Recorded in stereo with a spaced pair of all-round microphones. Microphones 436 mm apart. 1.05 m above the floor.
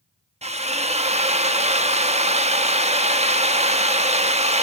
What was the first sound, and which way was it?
A drill, 15° right (ahead or behind).